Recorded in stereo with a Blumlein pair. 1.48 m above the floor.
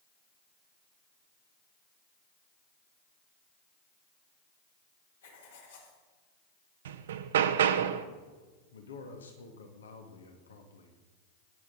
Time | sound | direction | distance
5.2 | writing | 65° left | 3.5 m
6.8 | hammering | 60° right | 0.9 m
8.7 | a man speaking | 70° left | 2 m